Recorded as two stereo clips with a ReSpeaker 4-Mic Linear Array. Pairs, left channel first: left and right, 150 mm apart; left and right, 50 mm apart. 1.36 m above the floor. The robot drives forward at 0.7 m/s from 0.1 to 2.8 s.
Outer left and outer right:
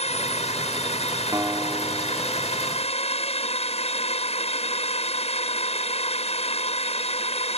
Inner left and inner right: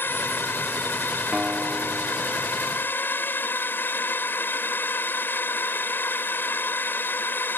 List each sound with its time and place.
0.0 s a drone: 45° left (ahead or behind)
1.3 s a guitar: 20° right (ahead or behind); by 3.0 s 10° right (ahead or behind)